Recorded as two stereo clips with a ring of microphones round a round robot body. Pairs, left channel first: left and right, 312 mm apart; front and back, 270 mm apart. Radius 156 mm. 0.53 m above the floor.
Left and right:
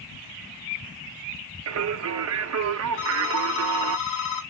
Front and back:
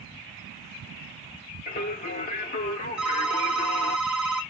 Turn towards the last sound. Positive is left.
turn(degrees=95)